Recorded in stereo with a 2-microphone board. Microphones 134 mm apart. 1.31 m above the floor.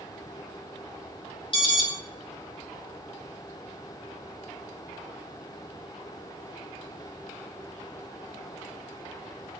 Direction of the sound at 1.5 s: 40° left (ahead or behind).